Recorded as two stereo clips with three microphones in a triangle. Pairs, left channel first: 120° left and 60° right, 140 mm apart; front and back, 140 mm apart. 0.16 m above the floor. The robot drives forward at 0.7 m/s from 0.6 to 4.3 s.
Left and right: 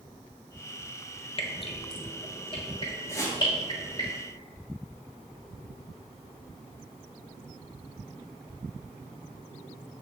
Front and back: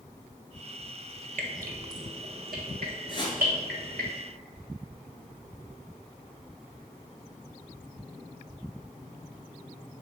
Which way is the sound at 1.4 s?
170° left.